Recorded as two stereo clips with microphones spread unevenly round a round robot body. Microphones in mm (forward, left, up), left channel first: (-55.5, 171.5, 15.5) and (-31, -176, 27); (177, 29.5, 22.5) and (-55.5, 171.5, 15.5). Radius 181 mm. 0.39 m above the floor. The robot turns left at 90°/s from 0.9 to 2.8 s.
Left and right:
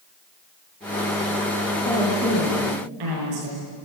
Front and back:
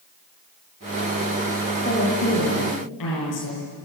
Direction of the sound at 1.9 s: 30° left.